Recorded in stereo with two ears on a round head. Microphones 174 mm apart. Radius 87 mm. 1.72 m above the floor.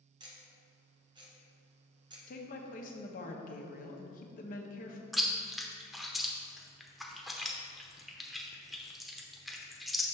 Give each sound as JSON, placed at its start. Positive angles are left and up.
{"t": 0.2, "sound": "ticking", "side_deg": -25, "distance_m": 1.1}
{"t": 2.3, "sound": "a woman speaking", "side_deg": 45, "distance_m": 0.9}
{"t": 5.1, "sound": "chewing", "side_deg": 0, "distance_m": 0.5}